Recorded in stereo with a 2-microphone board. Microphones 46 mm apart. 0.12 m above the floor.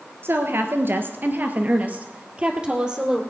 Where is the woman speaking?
55° right (ahead or behind), 1.9 m; by 3.2 s 15° right (ahead or behind), 2.5 m.